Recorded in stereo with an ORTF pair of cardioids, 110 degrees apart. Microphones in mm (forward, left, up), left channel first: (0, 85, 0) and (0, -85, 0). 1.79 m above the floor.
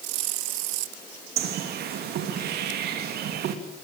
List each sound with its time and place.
1.4 s a bird: 70° right, 3 m